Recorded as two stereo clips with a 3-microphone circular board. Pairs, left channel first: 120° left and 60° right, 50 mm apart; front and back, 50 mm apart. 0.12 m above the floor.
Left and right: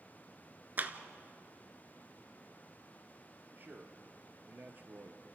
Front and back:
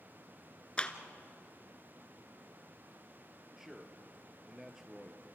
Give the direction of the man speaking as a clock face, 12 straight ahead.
3 o'clock.